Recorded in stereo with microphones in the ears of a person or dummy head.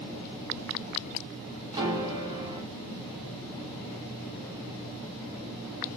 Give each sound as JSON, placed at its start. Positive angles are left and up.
{"t": 1.7, "sound": "a piano", "side_deg": -20, "distance_m": 1.2}